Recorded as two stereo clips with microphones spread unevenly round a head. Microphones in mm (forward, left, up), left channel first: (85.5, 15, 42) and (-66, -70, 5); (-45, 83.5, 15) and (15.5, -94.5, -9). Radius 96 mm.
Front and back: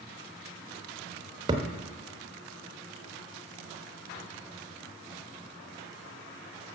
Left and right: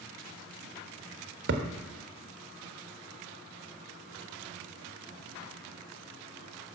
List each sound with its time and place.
1.5 s a thud: 80° right, 1.1 m